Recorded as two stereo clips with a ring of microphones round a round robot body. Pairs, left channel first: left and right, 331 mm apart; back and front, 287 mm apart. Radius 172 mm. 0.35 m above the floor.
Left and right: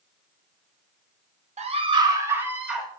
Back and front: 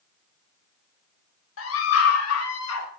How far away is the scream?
About 1.8 m.